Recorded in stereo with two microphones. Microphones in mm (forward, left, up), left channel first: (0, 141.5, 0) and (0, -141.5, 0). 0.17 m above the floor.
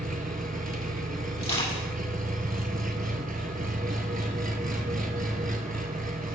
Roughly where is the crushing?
Left.